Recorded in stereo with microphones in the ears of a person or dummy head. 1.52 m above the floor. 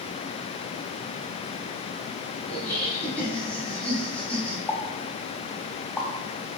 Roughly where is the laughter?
Centre.